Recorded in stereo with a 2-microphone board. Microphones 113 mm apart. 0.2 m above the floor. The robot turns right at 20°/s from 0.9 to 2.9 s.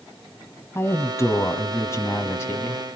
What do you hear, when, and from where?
0.8 s a woman speaking: 25° left (ahead or behind), 1.3 m